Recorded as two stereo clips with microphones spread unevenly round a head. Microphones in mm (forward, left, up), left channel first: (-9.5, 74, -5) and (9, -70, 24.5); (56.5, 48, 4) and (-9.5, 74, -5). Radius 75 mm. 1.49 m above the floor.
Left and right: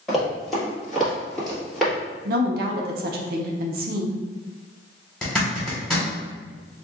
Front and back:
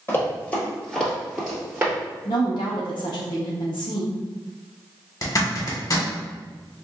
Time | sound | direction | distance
0.1 | running footsteps | 10° right | 1.8 m
2.2 | a woman speaking | 60° right | 0.5 m
5.2 | a zipper | 10° left | 1.3 m